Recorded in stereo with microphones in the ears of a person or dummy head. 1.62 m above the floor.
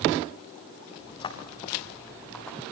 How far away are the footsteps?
About 3.5 m.